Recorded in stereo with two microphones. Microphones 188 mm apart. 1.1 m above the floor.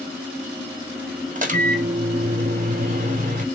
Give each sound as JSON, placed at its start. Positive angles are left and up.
{"t": 1.4, "sound": "a microwave", "side_deg": -45, "distance_m": 0.7}